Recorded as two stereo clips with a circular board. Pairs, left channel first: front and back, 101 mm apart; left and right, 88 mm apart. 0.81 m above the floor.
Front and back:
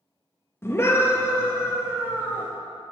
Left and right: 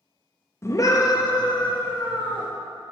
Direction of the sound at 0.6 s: 50° left.